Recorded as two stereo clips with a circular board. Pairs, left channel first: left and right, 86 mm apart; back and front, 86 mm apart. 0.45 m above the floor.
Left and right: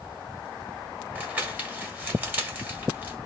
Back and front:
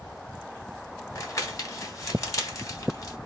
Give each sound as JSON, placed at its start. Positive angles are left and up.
{"t": 1.1, "sound": "crumpling", "azimuth_deg": -150, "distance_m": 1.2}